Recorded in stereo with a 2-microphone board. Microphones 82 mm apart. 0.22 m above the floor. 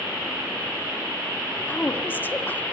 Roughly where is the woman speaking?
Left.